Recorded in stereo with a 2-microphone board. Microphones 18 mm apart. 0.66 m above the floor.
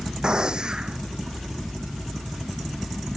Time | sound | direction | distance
0.2 | a gunshot | 45° right (ahead or behind) | ?